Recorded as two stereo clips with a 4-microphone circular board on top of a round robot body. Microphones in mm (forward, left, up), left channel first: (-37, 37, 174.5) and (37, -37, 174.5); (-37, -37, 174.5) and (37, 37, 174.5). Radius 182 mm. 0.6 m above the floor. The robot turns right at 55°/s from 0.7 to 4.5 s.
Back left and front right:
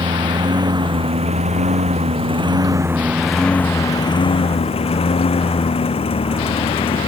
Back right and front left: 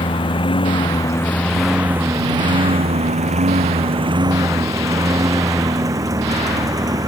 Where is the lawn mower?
95° right; by 7.1 s 105° left.